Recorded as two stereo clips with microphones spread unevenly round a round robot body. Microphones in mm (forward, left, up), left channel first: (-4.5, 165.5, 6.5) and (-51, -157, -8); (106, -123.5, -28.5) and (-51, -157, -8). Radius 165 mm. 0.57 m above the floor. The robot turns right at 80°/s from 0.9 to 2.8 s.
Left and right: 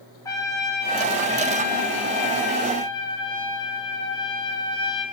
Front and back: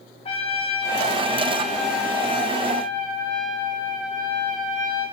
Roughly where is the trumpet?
Ahead.